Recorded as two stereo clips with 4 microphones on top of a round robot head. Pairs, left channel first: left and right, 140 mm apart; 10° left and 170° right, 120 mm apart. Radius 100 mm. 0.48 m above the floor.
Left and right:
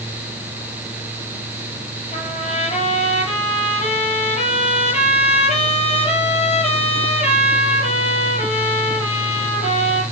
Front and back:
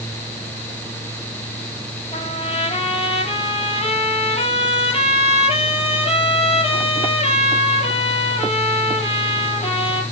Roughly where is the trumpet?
Ahead left.